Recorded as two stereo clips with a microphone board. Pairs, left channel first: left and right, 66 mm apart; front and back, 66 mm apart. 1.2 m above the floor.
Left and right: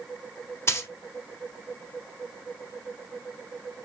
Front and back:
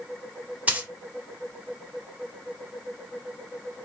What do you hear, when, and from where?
0.7 s a dropped coin: 120° left, 1.2 m